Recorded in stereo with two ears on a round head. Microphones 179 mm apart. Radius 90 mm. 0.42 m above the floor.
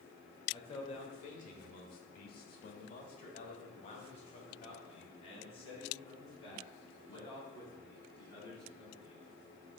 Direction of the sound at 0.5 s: 25° left (ahead or behind).